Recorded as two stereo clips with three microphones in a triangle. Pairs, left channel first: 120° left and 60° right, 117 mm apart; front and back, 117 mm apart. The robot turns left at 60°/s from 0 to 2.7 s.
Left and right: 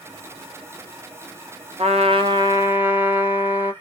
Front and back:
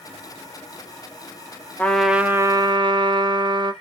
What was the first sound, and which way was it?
A trumpet, 75° right.